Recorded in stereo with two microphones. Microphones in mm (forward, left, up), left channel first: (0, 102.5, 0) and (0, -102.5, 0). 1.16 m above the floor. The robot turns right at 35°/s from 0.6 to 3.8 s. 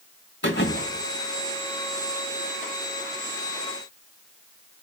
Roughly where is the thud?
Left.